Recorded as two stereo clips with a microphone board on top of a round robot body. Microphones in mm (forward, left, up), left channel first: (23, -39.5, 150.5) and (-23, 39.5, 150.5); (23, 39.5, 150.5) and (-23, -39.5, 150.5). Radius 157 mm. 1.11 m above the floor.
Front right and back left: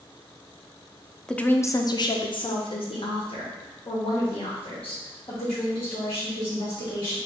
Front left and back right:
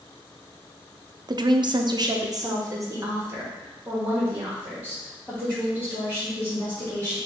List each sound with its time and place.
1.3 s a woman speaking: 140° right, 0.5 m; by 7.2 s 50° right, 3 m